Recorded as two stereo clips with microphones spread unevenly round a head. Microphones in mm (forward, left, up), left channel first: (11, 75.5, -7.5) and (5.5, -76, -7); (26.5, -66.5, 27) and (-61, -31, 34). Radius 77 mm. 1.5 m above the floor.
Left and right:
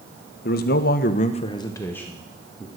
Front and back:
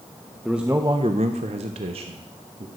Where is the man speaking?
70° left, 0.9 m; by 2.7 s straight behind, 1.6 m.